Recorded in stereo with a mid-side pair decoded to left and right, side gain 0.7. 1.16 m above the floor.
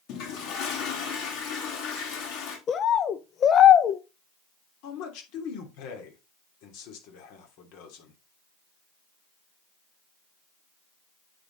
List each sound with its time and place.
0.1 s a toilet flushing: 60° left, 3.5 m
2.7 s a bird: 40° left, 0.7 m
4.8 s a man speaking: 65° left, 3 m